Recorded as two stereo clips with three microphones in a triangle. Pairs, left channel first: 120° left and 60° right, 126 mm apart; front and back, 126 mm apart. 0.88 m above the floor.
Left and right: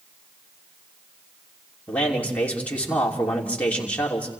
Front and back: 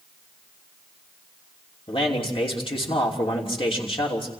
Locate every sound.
1.9 s a man speaking: 40° left, 3 m